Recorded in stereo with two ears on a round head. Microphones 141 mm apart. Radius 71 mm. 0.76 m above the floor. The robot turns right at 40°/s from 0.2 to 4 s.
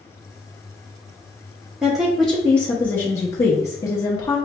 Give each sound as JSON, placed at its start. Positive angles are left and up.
{"t": 1.8, "sound": "a woman speaking", "side_deg": -5, "distance_m": 0.8}